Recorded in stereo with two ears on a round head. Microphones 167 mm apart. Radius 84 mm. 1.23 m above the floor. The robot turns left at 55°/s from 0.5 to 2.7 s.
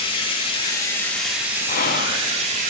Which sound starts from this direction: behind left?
Whispering, at 1.7 s.